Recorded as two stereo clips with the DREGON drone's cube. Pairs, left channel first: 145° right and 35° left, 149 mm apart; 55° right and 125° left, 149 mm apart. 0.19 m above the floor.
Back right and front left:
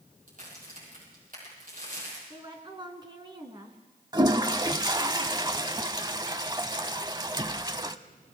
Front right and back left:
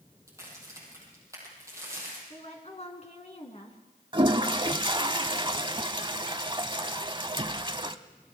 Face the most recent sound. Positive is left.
turn(degrees=85)